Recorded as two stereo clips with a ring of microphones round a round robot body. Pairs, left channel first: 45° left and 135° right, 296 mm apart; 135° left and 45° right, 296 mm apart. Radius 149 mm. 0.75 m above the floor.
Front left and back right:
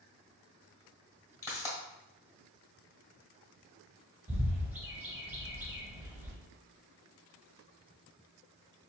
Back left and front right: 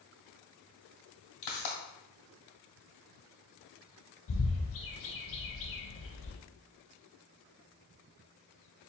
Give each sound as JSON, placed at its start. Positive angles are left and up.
{"t": 1.4, "sound": "a pop", "azimuth_deg": 125, "distance_m": 1.5}
{"t": 4.3, "sound": "a bird", "azimuth_deg": 145, "distance_m": 0.6}